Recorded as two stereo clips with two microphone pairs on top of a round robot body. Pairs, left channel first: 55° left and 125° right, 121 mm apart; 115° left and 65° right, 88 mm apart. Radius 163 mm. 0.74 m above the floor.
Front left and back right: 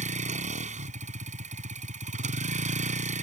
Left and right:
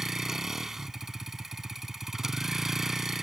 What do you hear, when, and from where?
0.0 s a vehicle: 150° right